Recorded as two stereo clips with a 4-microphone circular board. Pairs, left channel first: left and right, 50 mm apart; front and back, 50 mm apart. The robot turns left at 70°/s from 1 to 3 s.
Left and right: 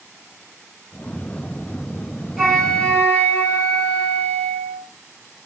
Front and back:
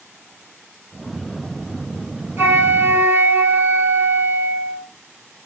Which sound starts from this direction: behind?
A flute, at 2.4 s.